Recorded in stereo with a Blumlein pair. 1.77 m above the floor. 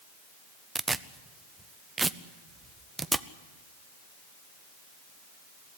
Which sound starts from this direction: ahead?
Tearing paper, at 0.8 s.